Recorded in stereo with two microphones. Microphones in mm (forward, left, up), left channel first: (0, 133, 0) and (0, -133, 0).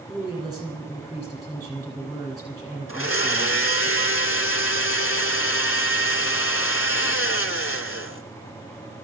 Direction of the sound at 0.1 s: 15° right (ahead or behind).